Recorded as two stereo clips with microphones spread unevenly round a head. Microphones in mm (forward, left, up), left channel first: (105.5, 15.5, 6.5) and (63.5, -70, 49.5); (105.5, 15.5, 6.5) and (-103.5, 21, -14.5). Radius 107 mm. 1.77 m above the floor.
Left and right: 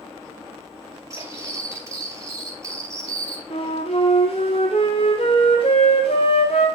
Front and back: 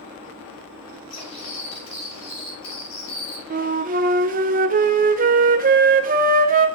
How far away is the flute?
About 1.0 m.